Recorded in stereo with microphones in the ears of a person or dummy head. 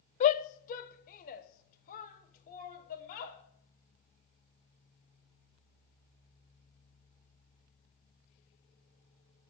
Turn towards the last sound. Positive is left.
turn(degrees=50)  # may be behind; listen again after turning